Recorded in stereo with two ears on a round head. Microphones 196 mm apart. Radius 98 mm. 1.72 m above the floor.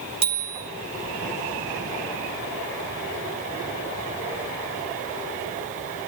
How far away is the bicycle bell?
About 3.5 m.